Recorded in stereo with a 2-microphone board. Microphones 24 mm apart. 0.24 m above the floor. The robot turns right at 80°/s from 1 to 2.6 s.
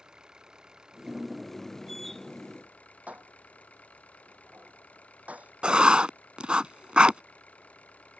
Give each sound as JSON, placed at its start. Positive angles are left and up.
{"t": 0.0, "sound": "an engine running", "azimuth_deg": -30}
{"t": 3.1, "sound": "dishes clattering", "side_deg": -85}
{"t": 5.6, "sound": "writing", "side_deg": -45}